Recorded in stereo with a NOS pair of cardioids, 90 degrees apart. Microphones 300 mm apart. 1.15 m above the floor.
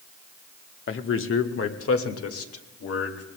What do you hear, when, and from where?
0.9 s a man speaking: 45° left, 1.1 m; by 3.2 s 55° left, 2.5 m